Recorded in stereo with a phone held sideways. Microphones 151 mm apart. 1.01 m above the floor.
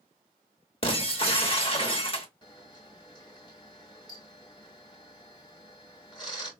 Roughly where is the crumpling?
No crumpling in this recording.